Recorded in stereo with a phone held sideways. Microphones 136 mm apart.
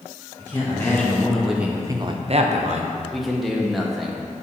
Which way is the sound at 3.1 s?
Centre (ahead or behind).